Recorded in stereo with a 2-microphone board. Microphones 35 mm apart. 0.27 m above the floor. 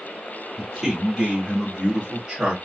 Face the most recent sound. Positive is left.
turn(degrees=-25)  # may be behind; listen again after turning